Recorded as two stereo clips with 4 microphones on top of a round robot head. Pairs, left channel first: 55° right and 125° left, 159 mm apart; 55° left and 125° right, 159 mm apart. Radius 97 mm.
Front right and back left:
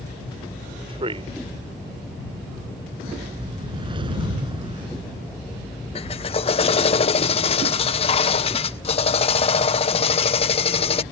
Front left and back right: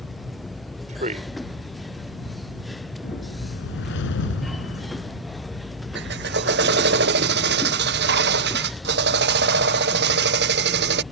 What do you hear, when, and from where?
0.9 s a man speaking: 175° right
3.0 s a whoosh: 65° left
6.0 s a drill: 110° right